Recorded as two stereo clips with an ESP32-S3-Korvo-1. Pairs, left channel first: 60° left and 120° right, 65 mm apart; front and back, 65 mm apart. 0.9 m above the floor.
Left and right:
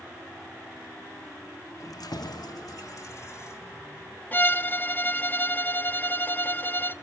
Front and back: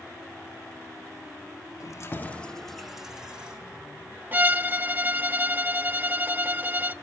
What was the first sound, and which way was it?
Keys jangling, 25° left.